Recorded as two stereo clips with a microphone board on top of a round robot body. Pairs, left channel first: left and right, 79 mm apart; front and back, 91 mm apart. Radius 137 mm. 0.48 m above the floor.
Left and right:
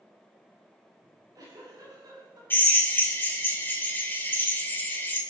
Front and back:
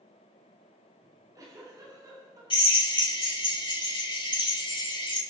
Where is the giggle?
130° right, 8 m.